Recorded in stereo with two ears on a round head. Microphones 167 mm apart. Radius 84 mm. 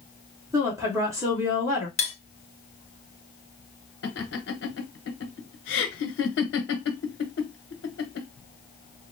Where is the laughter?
65° left (ahead or behind), 1.1 m.